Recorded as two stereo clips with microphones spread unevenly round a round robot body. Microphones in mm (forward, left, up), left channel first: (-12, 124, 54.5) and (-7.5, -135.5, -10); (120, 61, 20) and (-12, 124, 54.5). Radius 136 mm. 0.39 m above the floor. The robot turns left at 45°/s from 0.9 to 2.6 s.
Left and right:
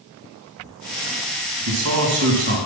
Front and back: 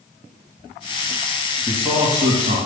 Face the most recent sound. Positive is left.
turn(degrees=-145)